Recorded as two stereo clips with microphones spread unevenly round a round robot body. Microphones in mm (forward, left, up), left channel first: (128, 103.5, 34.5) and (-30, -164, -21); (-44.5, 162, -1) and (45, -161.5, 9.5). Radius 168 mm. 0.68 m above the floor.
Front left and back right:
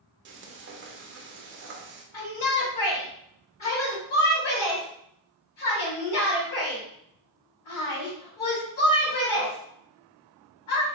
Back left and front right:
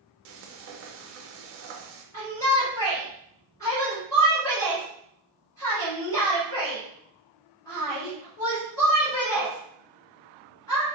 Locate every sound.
0.2 s frying: 110° right, 0.5 m
2.1 s a shout: 30° left, 1.7 m